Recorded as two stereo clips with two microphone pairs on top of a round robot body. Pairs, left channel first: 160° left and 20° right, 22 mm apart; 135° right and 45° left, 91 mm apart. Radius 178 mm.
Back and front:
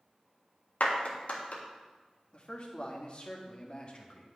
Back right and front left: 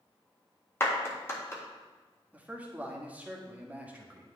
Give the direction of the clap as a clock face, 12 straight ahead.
6 o'clock.